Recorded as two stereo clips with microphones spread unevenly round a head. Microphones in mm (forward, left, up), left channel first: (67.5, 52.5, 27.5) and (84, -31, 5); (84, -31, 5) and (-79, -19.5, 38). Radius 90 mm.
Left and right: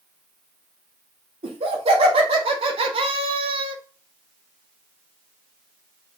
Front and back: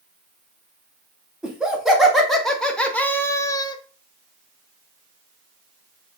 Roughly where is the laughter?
Right.